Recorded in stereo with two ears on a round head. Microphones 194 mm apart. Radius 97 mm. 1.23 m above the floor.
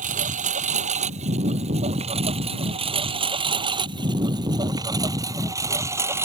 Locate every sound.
0.0 s a lawn mower: 35° right (ahead or behind); by 6.2 s 10° right (ahead or behind)